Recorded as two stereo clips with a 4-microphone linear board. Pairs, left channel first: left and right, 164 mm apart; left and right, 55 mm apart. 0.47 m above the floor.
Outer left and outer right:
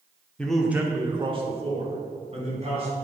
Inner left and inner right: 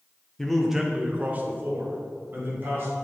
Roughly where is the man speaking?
Centre.